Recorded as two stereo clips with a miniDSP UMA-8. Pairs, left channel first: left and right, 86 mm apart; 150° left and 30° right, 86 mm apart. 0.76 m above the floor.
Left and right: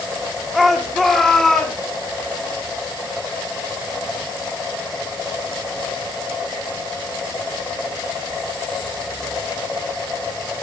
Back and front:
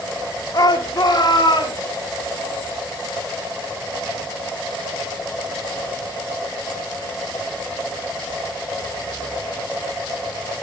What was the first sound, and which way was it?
A shout, straight behind.